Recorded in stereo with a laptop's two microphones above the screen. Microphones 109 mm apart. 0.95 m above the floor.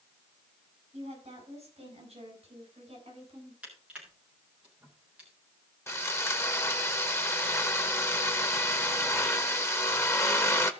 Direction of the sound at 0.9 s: 70° right (ahead or behind).